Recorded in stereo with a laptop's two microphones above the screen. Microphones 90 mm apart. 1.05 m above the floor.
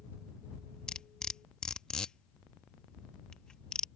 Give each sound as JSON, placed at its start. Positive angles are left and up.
{"t": 0.9, "sound": "cutlery clinking", "side_deg": 10}